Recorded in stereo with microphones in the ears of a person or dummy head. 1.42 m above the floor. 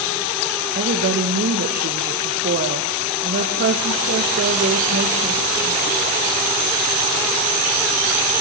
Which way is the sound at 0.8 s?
45° right (ahead or behind).